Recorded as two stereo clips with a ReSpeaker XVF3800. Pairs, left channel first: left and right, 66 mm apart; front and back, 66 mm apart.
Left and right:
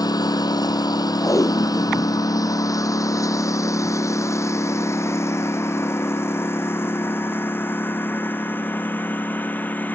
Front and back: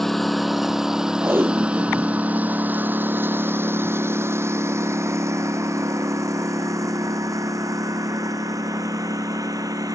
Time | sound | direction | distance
0.0 | a lawn mower | 85° left | ?
1.2 | tape being pulled | 125° left | ?